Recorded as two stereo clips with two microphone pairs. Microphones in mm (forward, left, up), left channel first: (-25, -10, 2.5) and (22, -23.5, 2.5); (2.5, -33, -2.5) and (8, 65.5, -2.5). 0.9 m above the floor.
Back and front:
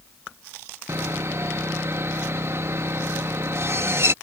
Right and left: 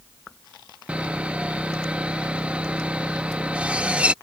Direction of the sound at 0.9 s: 10° left.